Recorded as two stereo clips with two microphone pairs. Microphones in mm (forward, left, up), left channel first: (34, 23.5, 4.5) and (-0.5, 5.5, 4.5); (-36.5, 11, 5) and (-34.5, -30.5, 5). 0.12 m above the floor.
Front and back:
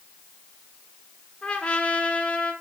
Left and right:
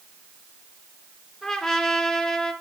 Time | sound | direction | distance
1.4 | a trumpet | 20° left | 1.3 m